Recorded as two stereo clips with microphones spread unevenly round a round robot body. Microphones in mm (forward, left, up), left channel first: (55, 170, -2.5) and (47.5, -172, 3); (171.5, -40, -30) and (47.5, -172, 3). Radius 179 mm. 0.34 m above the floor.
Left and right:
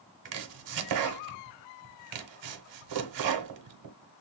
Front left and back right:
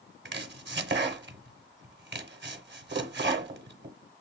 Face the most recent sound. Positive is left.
turn(degrees=-110)